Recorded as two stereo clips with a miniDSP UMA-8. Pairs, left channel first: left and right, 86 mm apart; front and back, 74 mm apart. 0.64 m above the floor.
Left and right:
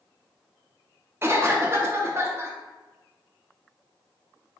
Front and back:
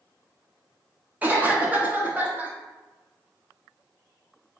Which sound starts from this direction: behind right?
A cough, at 1.2 s.